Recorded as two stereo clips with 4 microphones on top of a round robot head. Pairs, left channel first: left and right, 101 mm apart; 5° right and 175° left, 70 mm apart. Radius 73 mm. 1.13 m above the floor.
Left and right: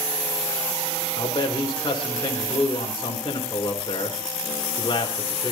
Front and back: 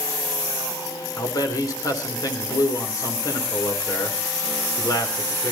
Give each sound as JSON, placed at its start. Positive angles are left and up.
{"t": 1.2, "sound": "a man speaking", "azimuth_deg": 30, "distance_m": 3.5}